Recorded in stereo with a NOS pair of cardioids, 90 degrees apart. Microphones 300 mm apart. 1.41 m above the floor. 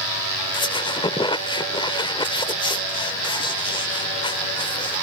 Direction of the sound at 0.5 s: 15° left.